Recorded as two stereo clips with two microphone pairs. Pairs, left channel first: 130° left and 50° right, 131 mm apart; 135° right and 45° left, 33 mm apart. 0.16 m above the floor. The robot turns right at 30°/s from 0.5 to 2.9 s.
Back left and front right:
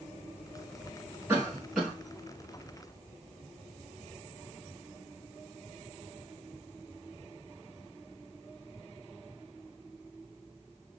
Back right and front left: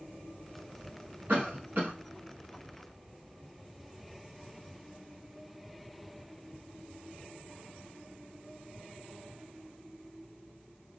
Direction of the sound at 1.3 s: 25° left.